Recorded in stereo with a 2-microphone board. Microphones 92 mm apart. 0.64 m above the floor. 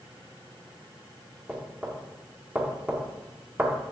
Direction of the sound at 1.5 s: 10° right (ahead or behind).